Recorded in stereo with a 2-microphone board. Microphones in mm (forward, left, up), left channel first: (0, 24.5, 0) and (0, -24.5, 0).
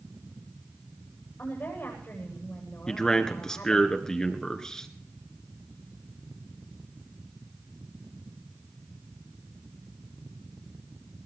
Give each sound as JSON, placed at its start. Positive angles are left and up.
{"t": 1.4, "sound": "a woman speaking", "side_deg": 45, "distance_m": 9.5}
{"t": 2.9, "sound": "a man speaking", "side_deg": 15, "distance_m": 1.9}